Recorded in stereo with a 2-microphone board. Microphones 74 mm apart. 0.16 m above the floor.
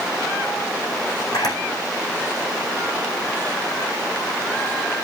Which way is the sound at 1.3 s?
65° left (ahead or behind).